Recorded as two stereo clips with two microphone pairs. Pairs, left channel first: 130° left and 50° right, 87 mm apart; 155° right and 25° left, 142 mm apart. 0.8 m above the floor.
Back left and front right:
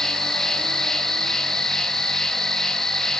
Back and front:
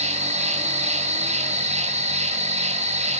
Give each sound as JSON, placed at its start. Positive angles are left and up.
{"t": 0.0, "sound": "an insect", "azimuth_deg": 45, "distance_m": 0.8}